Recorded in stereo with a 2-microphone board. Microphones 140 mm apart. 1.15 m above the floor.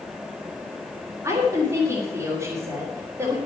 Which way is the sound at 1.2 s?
20° right (ahead or behind).